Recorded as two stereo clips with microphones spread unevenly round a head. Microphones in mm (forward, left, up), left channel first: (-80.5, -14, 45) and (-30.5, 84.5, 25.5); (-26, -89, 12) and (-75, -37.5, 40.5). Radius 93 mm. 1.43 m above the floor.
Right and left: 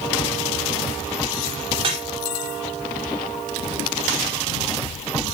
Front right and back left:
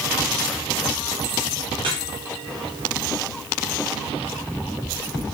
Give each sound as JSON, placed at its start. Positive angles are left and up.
{"t": 1.8, "sound": "dripping", "azimuth_deg": 100, "distance_m": 4.0}